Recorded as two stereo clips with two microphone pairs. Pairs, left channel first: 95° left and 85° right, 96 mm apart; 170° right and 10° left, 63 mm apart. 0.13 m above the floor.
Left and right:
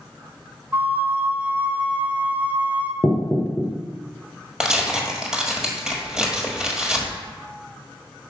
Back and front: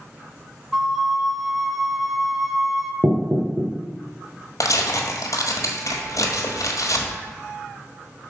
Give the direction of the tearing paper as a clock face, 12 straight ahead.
6 o'clock.